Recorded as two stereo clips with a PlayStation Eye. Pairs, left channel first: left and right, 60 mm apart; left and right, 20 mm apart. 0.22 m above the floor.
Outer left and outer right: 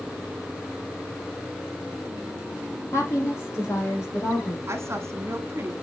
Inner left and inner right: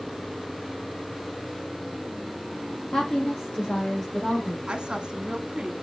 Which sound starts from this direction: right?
A woman speaking, at 4.7 s.